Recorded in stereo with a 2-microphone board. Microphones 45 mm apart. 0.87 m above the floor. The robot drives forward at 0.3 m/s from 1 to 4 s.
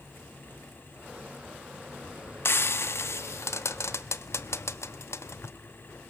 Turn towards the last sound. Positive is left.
turn(degrees=80)